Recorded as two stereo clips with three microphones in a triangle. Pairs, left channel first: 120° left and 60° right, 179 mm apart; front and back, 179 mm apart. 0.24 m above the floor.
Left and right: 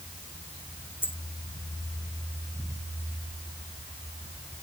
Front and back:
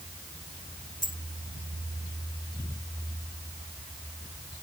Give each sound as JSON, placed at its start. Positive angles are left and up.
{"t": 1.0, "sound": "a dropped coin", "azimuth_deg": 40}